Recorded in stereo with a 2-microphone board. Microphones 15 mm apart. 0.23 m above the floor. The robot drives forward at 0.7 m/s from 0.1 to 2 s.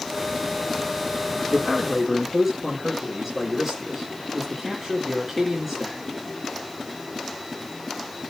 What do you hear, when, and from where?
1.5 s a man speaking: 10° right (ahead or behind), 2.5 m